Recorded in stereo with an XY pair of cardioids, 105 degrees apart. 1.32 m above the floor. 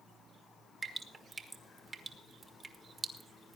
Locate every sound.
0.8 s dripping: 30° right, 1.6 m